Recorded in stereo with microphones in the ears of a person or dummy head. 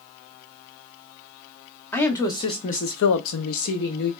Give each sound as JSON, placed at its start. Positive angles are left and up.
{"t": 1.9, "sound": "a woman speaking", "side_deg": 15, "distance_m": 0.9}